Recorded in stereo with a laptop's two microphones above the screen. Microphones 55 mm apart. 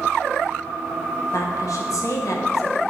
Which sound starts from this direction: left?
A woman speaking, at 1.3 s.